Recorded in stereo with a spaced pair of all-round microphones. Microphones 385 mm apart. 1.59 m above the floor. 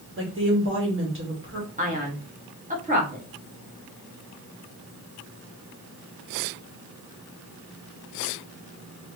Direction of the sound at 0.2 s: 30° right (ahead or behind).